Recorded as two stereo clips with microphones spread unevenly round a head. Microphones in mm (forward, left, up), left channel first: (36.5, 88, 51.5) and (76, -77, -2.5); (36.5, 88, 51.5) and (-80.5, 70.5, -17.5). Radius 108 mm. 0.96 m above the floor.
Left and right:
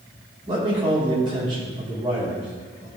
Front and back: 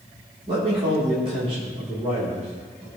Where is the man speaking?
135° right, 3 m.